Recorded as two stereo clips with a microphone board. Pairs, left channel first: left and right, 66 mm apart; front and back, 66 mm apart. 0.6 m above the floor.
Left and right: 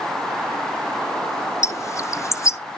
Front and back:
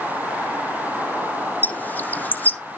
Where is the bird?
60° left, 0.5 m.